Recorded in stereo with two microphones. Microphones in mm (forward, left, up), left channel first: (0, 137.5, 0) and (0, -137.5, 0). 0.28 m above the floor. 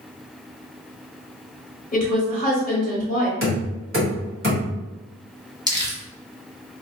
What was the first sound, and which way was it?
A woman speaking, 30° left (ahead or behind).